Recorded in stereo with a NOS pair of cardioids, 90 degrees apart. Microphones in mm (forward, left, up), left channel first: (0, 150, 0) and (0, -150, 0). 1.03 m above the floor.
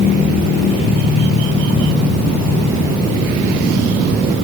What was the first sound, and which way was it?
Only background noise.